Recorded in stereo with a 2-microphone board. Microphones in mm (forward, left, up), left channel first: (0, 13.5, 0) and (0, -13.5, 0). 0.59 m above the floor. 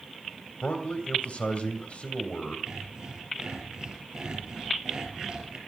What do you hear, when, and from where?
0.6 s a man speaking: 50° left (ahead or behind), 2.5 m
2.7 s sawing: 30° right (ahead or behind), 5.5 m